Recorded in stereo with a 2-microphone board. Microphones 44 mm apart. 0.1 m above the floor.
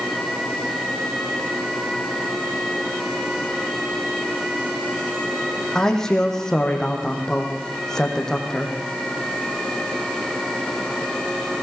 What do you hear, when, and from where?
5.8 s a man speaking: 10° left (ahead or behind), 4.5 m